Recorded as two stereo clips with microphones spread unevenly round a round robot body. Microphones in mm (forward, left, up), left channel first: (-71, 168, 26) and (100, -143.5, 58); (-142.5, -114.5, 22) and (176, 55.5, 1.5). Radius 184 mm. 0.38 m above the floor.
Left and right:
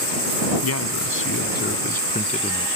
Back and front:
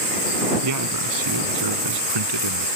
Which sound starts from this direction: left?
A man speaking, at 0.6 s.